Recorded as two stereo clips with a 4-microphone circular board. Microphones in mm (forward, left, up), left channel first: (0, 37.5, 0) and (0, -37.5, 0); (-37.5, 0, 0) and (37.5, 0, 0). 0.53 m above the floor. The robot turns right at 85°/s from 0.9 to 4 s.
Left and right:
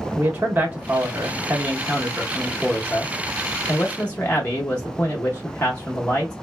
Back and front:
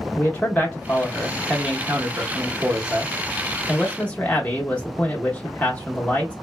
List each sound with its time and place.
0.1 s a man speaking: 125° right, 0.7 m; by 6.3 s 135° left, 0.7 m